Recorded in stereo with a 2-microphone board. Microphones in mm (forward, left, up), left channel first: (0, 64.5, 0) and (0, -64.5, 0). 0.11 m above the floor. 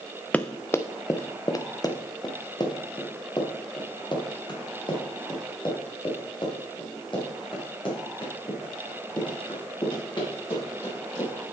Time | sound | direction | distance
0.3 | running footsteps | 10° left (ahead or behind) | 0.6 m